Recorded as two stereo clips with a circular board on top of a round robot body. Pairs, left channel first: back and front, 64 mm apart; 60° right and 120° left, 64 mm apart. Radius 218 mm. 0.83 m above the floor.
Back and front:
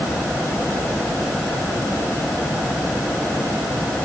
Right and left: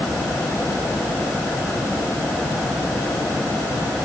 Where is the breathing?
I don't hear breathing.